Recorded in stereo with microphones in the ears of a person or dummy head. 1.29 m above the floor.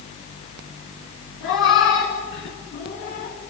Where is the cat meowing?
70° left (ahead or behind), 5.5 m; by 3.4 s 45° left (ahead or behind), 5 m.